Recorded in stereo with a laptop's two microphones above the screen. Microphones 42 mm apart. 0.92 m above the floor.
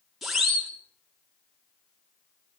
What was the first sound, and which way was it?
A siren, 5° right (ahead or behind).